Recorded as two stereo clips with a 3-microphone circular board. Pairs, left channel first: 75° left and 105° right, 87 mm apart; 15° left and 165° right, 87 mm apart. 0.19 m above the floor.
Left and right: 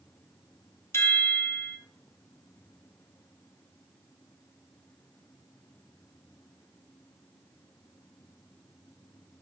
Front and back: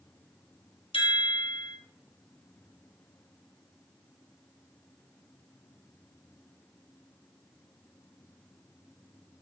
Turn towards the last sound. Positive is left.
turn(degrees=15)